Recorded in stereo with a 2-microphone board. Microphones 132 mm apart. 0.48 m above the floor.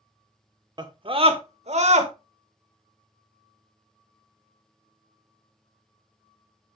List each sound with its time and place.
0.8 s a scream: 30° right (ahead or behind), 1.0 m; by 2.1 s 55° right (ahead or behind), 1.6 m